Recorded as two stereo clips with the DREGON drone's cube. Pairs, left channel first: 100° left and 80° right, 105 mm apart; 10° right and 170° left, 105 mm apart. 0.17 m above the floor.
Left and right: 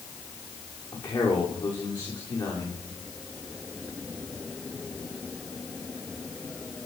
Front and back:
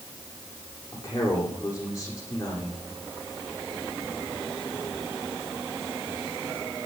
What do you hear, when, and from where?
0.9 s a man speaking: 50° left, 9 m